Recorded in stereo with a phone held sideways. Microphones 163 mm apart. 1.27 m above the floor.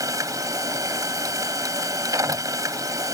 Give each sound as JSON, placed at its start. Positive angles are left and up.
{"t": 0.0, "sound": "a machine running", "side_deg": -20}